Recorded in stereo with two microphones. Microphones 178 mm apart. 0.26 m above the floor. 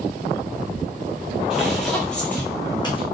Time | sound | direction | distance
1.5 | footsteps | 5° right (ahead or behind) | 1.8 m